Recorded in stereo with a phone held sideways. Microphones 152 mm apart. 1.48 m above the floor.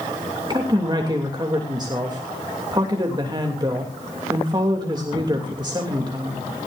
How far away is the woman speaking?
About 3 m.